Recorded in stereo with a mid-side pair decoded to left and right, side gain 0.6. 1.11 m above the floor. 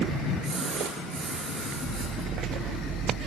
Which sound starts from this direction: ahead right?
A splash, at 0.4 s.